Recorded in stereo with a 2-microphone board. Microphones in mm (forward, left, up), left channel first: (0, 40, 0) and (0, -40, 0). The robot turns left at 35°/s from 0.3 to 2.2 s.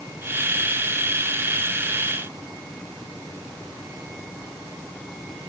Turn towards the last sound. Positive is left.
No sound to turn to.